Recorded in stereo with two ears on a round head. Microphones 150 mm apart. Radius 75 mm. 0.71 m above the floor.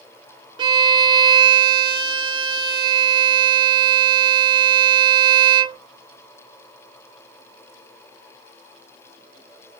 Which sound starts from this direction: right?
A violin, at 0.6 s.